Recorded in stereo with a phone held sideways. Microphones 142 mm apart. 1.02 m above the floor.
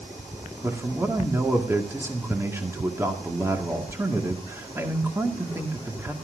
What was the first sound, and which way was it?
A man speaking, 15° right (ahead or behind).